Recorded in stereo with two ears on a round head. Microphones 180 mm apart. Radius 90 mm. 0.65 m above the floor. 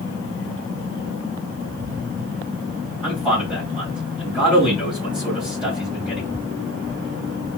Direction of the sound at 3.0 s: 5° right (ahead or behind).